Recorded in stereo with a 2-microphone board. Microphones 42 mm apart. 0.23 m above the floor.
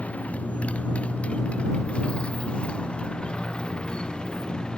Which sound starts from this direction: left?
A motorcycle, at 0.0 s.